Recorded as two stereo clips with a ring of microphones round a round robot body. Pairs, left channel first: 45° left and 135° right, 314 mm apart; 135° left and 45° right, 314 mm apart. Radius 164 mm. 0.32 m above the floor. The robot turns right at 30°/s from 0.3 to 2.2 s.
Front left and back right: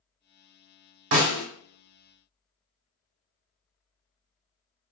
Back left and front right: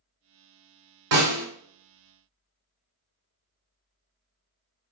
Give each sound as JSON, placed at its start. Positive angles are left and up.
{"t": 1.1, "sound": "a snare drum", "azimuth_deg": -85, "distance_m": 1.1}